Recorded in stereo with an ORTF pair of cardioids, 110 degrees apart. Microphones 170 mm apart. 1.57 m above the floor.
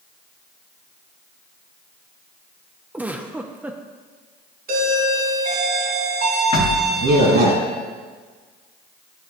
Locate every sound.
2.9 s a giggle: 10° right, 0.8 m
4.7 s a doorbell: 65° right, 3 m
6.5 s knocking: 40° left, 2.5 m